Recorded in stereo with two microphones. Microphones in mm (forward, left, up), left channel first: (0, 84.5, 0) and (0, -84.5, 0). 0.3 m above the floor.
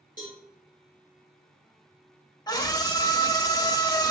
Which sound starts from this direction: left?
A scream, at 2.5 s.